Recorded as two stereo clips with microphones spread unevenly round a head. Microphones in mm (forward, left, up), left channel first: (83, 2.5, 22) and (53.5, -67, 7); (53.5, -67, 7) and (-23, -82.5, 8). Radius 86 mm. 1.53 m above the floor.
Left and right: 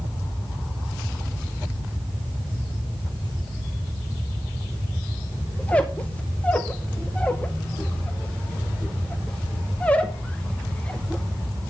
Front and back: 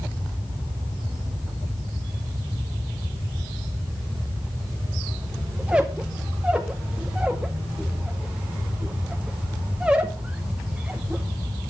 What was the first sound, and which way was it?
A squeak, 120° left.